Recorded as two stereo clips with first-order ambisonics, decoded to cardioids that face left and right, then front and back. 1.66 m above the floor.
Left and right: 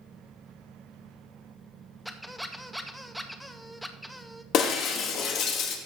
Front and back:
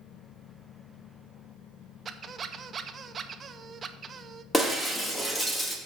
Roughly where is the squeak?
Behind.